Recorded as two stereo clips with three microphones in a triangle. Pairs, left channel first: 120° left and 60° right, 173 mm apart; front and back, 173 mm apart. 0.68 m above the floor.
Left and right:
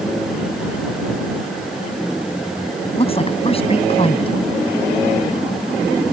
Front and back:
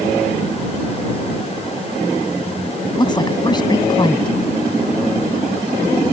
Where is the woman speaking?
65° left.